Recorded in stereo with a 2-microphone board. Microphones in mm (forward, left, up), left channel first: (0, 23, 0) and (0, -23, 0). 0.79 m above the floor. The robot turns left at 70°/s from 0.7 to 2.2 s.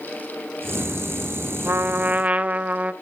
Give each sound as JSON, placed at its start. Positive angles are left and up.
{"t": 1.6, "sound": "a trumpet", "azimuth_deg": -100, "distance_m": 0.8}